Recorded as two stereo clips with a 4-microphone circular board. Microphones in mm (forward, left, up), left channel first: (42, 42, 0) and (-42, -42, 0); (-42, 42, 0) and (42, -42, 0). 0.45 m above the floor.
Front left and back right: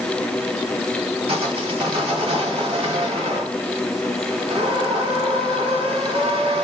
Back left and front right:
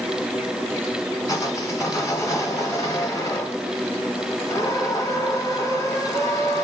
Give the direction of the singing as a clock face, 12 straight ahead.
No singing in this recording.